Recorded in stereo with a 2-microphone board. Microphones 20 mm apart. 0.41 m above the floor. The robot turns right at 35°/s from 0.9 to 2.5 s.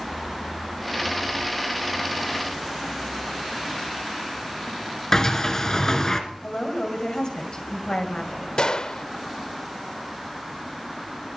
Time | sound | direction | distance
5.1 | a sliding door | 35° left (ahead or behind) | 1.5 m
6.4 | a woman speaking | 60° left (ahead or behind) | 2.5 m
8.6 | a gunshot | 50° left (ahead or behind) | 0.5 m